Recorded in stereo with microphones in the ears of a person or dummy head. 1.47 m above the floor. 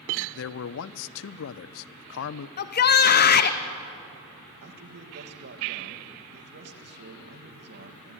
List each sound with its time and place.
0.3 s a man speaking: 75° left (ahead or behind), 0.7 m
2.6 s a shout: 50° left (ahead or behind), 0.8 m
4.6 s a man speaking: 55° right (ahead or behind), 1.9 m